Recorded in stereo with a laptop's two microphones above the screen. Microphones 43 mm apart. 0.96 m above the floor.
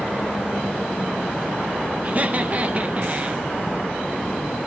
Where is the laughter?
35° right (ahead or behind), 0.9 m.